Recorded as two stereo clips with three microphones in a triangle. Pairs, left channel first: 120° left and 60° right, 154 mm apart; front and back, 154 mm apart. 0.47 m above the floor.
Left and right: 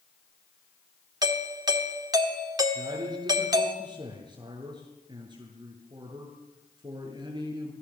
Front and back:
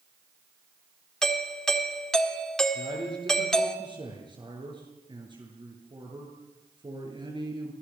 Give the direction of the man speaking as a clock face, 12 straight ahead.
4 o'clock.